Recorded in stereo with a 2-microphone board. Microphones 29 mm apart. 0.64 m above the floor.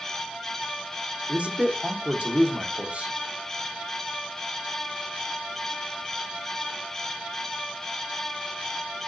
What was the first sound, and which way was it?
A man speaking, 55° right (ahead or behind).